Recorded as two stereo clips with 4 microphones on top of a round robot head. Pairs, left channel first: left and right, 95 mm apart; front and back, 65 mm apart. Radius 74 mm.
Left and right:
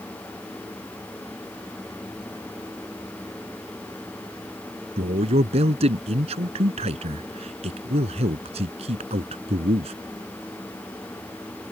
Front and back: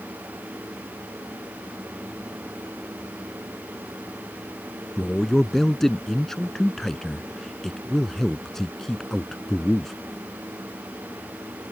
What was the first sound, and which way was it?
A man speaking, 85° right.